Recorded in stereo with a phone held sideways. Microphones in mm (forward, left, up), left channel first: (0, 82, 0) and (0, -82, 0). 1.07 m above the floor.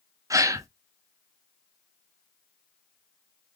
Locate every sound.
0.3 s a gasp: 20° right (ahead or behind), 0.5 m